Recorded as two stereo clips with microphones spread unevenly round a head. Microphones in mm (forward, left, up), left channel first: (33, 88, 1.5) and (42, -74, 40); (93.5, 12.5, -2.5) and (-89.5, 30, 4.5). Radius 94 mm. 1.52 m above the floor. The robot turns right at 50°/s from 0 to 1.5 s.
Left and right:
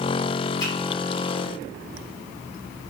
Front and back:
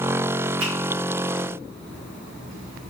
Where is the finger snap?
170° left, 2 m; by 0.7 s 175° left, 2 m.